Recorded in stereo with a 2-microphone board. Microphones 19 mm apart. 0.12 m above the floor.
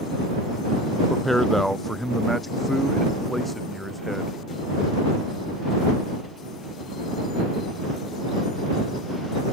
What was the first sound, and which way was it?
A man speaking, 10° left (ahead or behind).